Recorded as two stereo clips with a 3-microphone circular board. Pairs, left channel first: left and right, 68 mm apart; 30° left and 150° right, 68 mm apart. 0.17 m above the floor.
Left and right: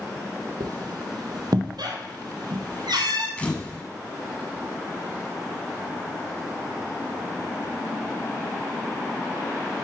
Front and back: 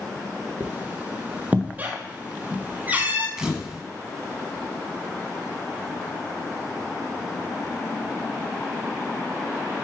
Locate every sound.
0.6 s a squeak: 85° right, 1.4 m
3.4 s a camera shutter: 140° left, 1.3 m